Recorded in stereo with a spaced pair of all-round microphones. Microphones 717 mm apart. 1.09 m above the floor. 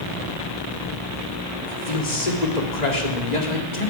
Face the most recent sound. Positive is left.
turn(degrees=70)  # may be behind; listen again after turning